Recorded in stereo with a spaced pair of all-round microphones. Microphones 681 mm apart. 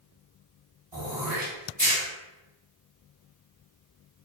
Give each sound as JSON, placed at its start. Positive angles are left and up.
{"t": 0.9, "sound": "throat clearing", "side_deg": -10, "distance_m": 1.4}